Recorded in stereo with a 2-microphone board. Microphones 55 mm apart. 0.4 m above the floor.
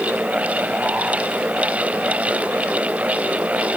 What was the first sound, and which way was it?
Only background noise.